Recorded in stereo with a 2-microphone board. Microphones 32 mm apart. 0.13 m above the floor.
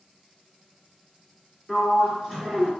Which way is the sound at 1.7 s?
Centre (ahead or behind).